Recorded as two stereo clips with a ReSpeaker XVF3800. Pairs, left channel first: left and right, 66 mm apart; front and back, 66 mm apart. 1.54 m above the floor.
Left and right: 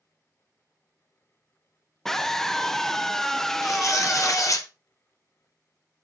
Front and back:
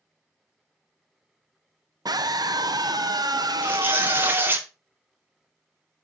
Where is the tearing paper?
120° left, 1.1 m.